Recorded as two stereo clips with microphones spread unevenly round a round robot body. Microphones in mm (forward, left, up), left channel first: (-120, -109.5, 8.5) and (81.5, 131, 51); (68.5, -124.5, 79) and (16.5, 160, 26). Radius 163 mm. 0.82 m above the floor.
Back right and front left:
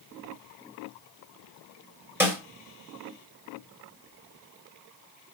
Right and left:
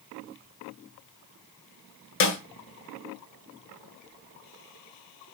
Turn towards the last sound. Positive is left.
turn(degrees=-35)